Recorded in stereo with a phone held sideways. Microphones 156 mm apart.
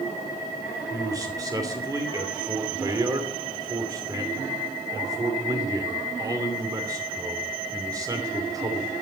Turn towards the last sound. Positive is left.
turn(degrees=-25)  # may be behind; listen again after turning